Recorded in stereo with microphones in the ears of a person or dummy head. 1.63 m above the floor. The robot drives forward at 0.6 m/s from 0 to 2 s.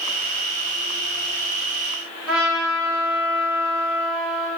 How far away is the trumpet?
About 2 m.